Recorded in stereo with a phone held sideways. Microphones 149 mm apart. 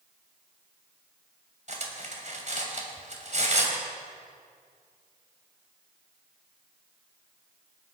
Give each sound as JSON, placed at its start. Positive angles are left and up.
{"t": 1.7, "sound": "cutlery clinking", "side_deg": -55, "distance_m": 2.5}